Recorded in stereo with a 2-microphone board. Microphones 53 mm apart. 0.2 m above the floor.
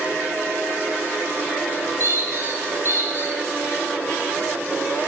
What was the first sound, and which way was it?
A squeak, 50° right (ahead or behind).